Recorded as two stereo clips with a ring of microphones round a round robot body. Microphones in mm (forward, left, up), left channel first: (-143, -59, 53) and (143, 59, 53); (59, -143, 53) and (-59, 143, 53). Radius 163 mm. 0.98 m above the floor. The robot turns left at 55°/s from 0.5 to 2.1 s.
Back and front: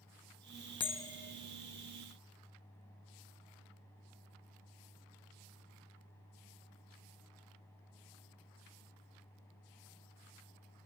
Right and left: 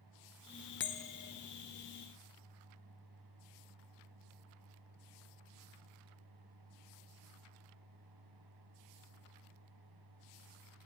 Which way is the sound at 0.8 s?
90° right.